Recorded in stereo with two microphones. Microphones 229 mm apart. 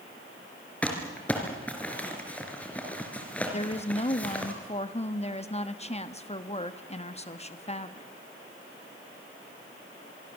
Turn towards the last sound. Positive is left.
turn(degrees=25)  # may be behind; listen again after turning